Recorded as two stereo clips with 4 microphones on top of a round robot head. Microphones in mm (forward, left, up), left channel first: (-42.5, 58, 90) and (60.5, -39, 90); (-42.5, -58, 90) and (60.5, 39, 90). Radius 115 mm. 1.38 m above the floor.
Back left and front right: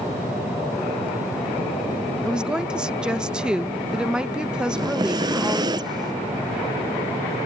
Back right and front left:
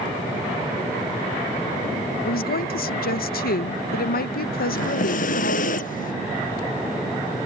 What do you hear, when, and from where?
2.2 s a woman speaking: 125° right
4.7 s breathing: 105° right